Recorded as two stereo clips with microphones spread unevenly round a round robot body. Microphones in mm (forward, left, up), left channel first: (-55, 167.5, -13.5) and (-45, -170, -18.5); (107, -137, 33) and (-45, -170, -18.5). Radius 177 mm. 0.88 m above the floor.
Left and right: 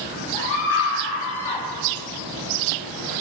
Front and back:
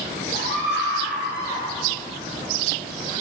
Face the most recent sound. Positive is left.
turn(degrees=95)